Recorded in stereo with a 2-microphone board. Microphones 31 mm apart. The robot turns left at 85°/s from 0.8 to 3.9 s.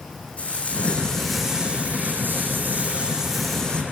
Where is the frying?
45° left, 8 m; by 3.8 s 145° left, 8 m.